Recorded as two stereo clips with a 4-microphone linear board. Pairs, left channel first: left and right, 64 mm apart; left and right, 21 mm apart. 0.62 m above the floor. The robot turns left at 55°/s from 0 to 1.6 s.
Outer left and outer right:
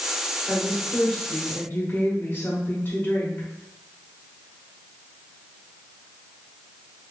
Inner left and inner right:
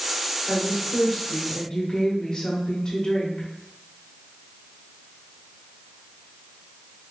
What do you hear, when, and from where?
0.5 s a woman speaking: 160° right, 1.4 m; by 3.5 s 135° left, 1.4 m